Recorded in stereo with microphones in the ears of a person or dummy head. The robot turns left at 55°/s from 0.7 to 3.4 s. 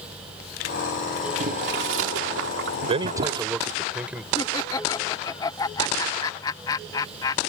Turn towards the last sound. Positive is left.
turn(degrees=25)  # may be behind; listen again after turning